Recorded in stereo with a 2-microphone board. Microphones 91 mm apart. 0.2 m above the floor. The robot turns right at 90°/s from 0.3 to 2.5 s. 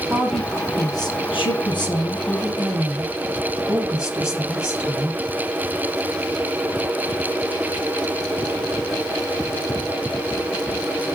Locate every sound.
0.1 s a woman speaking: 10° right, 5 m; by 5.2 s 170° right, 5 m